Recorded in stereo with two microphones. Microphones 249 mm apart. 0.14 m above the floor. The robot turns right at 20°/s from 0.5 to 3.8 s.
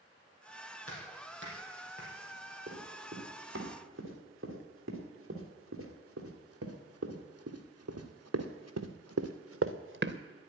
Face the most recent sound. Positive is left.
turn(degrees=-45)  # may be behind; listen again after turning